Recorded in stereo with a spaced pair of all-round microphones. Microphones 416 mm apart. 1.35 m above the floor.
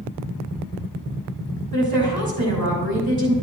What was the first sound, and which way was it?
A woman speaking, 55° right (ahead or behind).